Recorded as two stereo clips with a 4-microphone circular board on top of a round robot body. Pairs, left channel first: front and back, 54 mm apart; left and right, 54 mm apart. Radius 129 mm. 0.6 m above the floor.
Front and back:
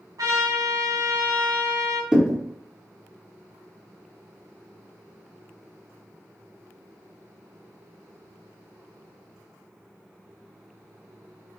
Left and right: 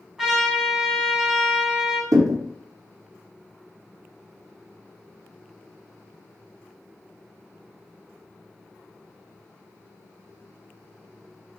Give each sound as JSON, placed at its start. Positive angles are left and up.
{"t": 0.2, "sound": "a trumpet", "azimuth_deg": -175, "distance_m": 1.1}
{"t": 2.1, "sound": "a thud", "azimuth_deg": -105, "distance_m": 0.6}